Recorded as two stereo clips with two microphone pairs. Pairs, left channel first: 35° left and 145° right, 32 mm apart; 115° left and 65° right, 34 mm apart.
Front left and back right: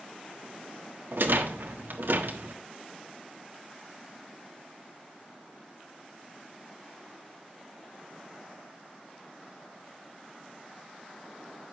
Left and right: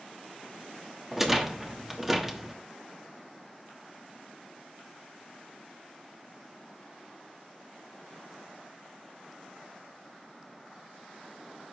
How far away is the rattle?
About 1.2 m.